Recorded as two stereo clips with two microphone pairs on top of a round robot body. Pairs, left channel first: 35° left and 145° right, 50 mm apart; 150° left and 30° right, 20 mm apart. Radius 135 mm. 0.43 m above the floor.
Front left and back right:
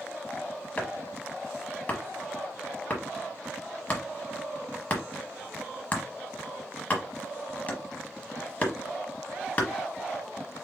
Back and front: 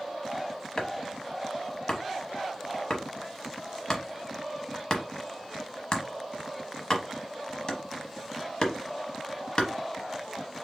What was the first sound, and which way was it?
Chopping, 95° left.